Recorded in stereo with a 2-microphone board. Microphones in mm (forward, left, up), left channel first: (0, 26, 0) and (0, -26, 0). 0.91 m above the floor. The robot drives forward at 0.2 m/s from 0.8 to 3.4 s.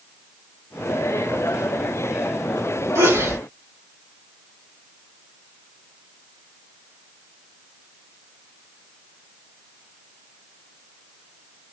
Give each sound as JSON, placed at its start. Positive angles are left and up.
{"t": 3.0, "sound": "a sneeze", "side_deg": -70, "distance_m": 1.9}